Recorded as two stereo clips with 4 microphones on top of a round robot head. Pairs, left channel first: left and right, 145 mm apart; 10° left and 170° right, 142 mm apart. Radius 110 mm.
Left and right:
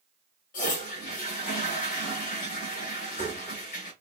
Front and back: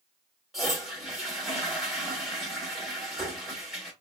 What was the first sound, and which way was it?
A toilet flushing, 100° left.